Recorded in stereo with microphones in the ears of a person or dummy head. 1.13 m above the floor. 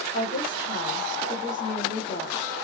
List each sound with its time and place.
0.1 s a woman speaking: 40° left (ahead or behind), 2.5 m